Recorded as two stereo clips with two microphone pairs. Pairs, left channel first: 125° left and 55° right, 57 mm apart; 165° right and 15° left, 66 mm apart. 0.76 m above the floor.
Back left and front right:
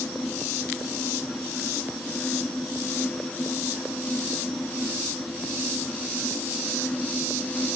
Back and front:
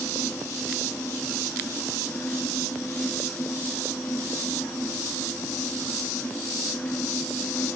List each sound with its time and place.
Only background noise.